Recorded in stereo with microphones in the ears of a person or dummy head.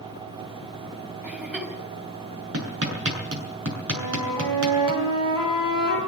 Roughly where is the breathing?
I don't hear breathing.